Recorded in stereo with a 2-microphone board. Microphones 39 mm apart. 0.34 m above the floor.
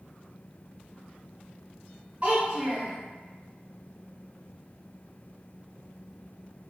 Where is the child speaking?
40° right (ahead or behind), 1.8 m.